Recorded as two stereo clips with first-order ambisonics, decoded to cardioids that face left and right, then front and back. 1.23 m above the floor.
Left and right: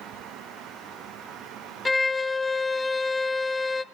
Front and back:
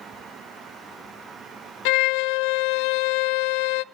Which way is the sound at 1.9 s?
10° left.